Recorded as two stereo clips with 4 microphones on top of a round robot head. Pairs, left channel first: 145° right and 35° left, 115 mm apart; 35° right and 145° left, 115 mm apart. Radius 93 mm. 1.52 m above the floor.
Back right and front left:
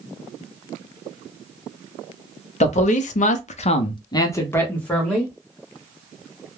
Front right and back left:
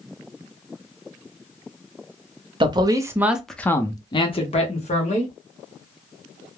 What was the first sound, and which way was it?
A man speaking, 165° right.